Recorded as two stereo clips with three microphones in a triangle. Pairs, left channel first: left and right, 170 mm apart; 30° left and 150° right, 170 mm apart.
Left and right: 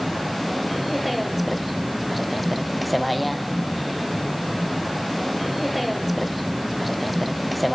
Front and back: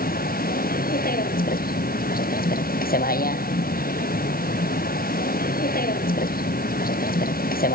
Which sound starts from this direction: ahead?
A vehicle, at 0.0 s.